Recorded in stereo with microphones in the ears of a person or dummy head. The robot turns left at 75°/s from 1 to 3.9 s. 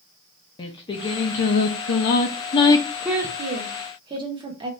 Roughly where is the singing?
Behind left.